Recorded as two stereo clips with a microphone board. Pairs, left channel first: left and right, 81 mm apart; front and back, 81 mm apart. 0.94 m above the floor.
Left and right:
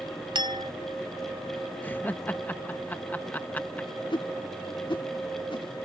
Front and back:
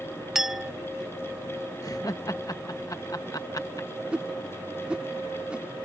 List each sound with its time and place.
0.3 s a clink: 95° right
1.8 s laughter: 25° left
4.1 s a whoosh: 105° left